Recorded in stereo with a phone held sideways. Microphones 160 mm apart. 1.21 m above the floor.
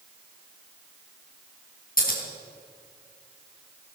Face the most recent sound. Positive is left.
turn(degrees=65)  # may be behind; listen again after turning